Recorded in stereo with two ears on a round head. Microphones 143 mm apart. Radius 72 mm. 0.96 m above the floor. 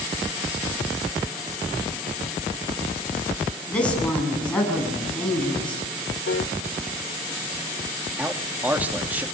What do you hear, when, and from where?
3.7 s a woman speaking: 10° left (ahead or behind), 8 m
6.3 s a piano: 80° left, 1.5 m
8.2 s a man speaking: 10° right (ahead or behind), 2 m